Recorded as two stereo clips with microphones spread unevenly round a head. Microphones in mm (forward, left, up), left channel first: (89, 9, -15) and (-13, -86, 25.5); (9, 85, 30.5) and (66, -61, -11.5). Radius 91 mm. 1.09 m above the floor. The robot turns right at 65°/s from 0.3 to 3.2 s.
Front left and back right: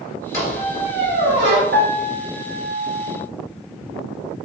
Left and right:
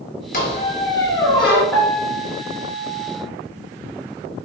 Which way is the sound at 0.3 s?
125° left.